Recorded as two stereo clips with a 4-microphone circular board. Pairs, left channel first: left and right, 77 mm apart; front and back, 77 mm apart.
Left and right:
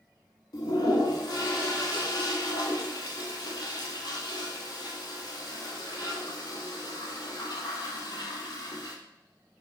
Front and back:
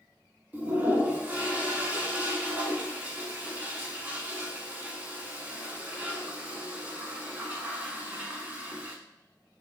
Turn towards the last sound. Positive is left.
turn(degrees=110)